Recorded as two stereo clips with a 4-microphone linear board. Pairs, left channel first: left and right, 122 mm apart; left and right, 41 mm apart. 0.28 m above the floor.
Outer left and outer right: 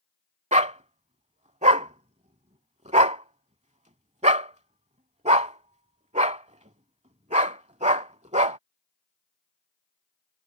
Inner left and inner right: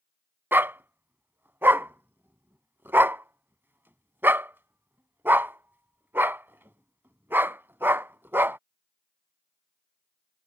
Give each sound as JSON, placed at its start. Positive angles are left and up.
{"t": 0.5, "sound": "a dog barking", "side_deg": -70}